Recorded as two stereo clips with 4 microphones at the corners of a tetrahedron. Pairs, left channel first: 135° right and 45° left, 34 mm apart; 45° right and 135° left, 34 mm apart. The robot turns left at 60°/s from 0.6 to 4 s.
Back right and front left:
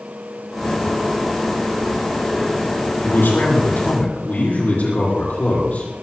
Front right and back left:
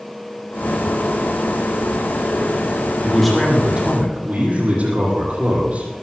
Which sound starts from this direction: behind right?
A man speaking, at 3.0 s.